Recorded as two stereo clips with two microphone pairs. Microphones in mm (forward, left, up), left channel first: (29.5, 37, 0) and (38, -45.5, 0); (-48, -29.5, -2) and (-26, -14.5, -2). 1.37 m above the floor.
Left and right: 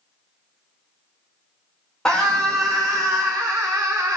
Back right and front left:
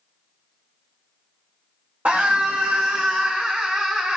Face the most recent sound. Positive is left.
turn(degrees=-25)